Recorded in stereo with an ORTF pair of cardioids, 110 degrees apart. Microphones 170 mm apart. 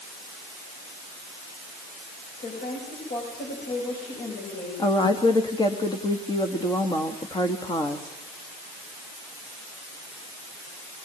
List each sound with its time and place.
2.4 s a woman speaking: 60° left, 9.5 m
4.8 s a woman speaking: 25° left, 2 m